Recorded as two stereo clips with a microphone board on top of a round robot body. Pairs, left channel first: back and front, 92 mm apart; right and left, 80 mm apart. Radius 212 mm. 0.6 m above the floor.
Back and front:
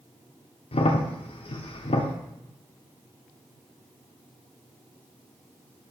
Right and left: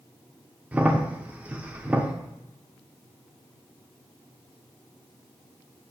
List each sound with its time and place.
0.7 s a crack: 165° left, 0.6 m